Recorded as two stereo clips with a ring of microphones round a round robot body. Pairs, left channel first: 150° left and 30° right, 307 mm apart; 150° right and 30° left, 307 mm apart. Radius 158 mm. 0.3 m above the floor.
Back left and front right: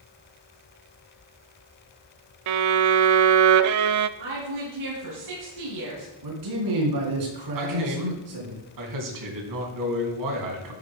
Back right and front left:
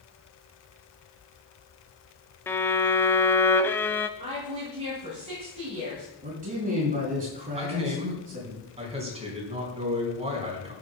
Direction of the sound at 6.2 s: 35° right.